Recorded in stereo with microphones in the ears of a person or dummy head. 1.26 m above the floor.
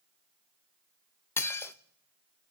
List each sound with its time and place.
1.4 s dishes clattering: 10° left (ahead or behind), 0.5 m